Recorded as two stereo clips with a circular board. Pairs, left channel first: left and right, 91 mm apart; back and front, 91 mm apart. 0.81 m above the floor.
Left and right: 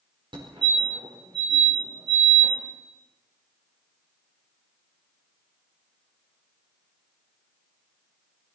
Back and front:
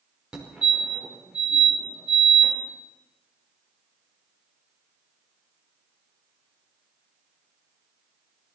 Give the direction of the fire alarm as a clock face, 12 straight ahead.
3 o'clock.